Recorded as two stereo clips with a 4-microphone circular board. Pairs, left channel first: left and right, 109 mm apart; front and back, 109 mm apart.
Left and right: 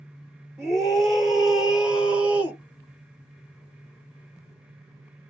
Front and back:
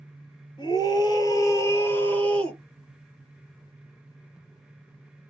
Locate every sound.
0.6 s a scream: 5° left, 1.7 m; by 2.6 s 70° right, 1.4 m